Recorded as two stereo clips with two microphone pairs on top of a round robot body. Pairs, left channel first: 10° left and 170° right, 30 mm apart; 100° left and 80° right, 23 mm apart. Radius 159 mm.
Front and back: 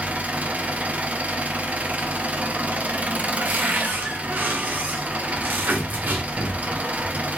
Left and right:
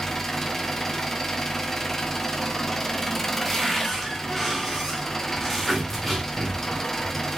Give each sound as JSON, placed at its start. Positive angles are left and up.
{"t": 0.0, "sound": "an engine running", "azimuth_deg": 165, "distance_m": 0.9}
{"t": 3.4, "sound": "a cupboard door", "azimuth_deg": -170, "distance_m": 0.9}